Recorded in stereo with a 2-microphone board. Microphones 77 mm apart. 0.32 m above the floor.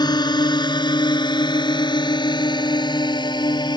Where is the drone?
65° left (ahead or behind); by 3.8 s 70° left (ahead or behind).